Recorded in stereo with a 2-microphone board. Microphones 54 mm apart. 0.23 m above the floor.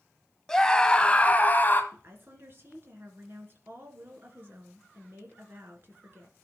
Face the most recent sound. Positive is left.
turn(degrees=-45)  # may be behind; listen again after turning